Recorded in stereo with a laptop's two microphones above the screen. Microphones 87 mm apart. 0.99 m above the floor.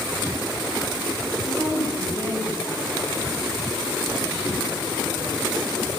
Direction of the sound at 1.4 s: 50° right (ahead or behind).